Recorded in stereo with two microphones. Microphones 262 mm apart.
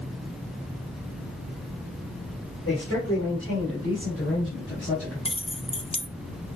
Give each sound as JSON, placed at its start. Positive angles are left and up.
{"t": 2.6, "sound": "a man speaking", "side_deg": 55, "distance_m": 4.5}
{"t": 5.2, "sound": "keys jangling", "side_deg": 20, "distance_m": 0.6}